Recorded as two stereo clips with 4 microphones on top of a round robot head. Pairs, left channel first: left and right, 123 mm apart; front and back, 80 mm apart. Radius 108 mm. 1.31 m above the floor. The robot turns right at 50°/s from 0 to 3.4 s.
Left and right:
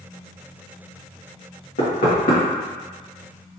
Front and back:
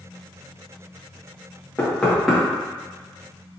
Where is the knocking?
70° left, 2.0 m; by 2.4 s 100° left, 2.0 m.